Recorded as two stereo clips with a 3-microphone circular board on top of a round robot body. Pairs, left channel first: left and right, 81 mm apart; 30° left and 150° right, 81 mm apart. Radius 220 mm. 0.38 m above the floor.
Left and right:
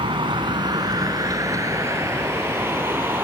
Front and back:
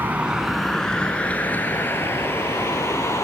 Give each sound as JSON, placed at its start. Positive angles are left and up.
{"t": 0.0, "sound": "a vehicle", "azimuth_deg": -80}